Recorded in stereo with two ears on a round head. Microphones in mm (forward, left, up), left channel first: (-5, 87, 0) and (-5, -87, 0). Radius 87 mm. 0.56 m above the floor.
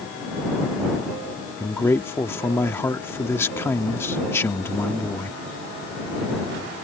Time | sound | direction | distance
1.6 | a man speaking | 15° left (ahead or behind) | ?